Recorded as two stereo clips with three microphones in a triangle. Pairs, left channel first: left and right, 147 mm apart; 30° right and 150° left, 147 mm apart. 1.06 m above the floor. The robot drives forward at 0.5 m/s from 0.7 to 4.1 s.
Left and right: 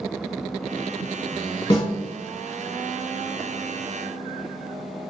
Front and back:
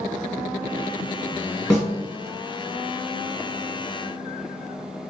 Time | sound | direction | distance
1.7 | a snare drum | 35° left | 1.6 m